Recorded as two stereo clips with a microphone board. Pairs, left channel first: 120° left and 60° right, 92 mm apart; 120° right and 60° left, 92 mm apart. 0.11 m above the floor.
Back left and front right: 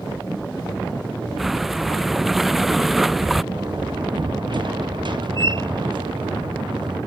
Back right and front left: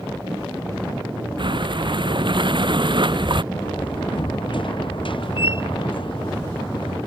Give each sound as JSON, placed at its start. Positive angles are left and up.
{"t": 1.4, "sound": "breathing", "azimuth_deg": 30}
{"t": 3.5, "sound": "a door slam", "azimuth_deg": -90}